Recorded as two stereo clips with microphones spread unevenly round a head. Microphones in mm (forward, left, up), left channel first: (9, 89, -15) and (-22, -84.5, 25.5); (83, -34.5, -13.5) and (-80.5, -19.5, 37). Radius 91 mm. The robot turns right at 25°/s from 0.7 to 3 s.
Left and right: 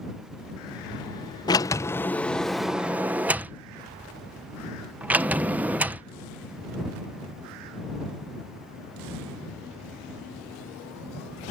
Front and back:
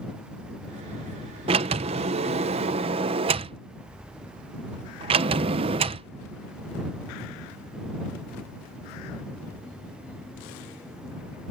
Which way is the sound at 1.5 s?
155° left.